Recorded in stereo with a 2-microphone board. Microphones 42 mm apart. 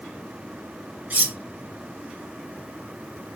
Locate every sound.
1.1 s cutlery clinking: 45° right (ahead or behind), 0.9 m